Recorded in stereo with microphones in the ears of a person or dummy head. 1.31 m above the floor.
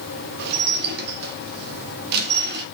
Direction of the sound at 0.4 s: 60° right (ahead or behind).